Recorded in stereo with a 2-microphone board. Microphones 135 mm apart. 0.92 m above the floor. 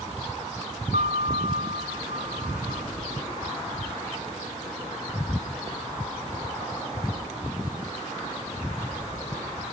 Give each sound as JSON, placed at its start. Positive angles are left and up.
{"t": 0.9, "sound": "a piano", "side_deg": -80, "distance_m": 2.0}